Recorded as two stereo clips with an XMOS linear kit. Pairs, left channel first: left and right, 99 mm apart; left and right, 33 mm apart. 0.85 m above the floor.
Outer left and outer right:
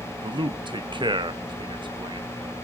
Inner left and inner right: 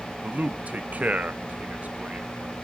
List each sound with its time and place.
0.2 s a man speaking: 50° right (ahead or behind), 0.6 m